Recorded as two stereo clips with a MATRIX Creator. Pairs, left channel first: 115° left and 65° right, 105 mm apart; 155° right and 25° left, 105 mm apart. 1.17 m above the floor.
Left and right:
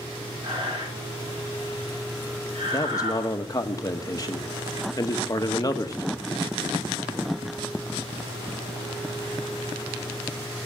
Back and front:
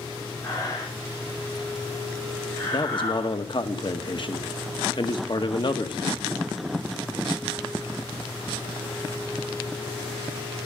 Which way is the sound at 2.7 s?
165° left.